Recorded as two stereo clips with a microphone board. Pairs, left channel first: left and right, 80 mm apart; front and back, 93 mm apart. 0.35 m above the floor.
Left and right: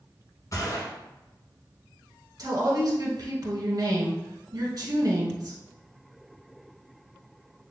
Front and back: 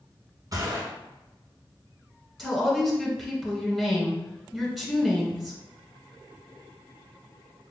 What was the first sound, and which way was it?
A gunshot, 130° left.